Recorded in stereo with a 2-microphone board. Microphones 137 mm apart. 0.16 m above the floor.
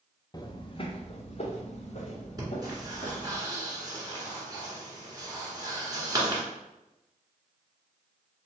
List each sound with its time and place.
0.3 s footsteps: 30° left (ahead or behind), 0.6 m; by 3.4 s 60° left (ahead or behind), 2 m
2.4 s breathing: 30° right (ahead or behind), 1.6 m